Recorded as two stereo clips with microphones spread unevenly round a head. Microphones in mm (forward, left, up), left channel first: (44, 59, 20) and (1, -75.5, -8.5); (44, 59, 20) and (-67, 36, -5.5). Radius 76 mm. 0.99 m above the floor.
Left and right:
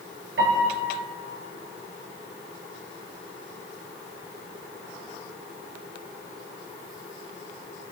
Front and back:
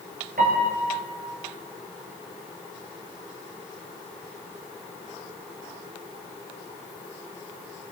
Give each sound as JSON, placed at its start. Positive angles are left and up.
{"t": 0.4, "sound": "a piano", "azimuth_deg": -125, "distance_m": 4.0}